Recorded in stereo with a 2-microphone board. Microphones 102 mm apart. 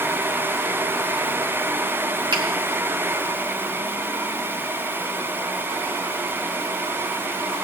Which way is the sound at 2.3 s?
50° right (ahead or behind).